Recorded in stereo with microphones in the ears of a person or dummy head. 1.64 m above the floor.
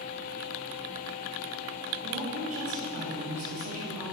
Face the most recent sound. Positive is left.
turn(degrees=-45)  # may be behind; listen again after turning